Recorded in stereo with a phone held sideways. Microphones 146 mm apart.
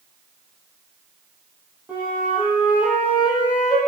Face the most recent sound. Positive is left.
turn(degrees=-10)  # may be behind; listen again after turning